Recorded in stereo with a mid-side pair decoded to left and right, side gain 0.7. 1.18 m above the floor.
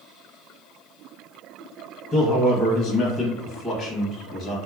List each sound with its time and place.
2.1 s a man speaking: 30° left, 0.9 m